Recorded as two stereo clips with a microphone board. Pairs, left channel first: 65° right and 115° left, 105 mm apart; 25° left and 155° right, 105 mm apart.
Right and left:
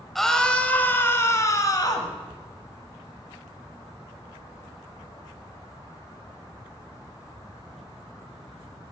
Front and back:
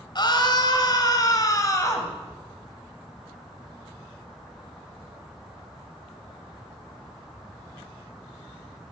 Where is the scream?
20° left, 1.3 m; by 2.1 s 30° right, 1.6 m.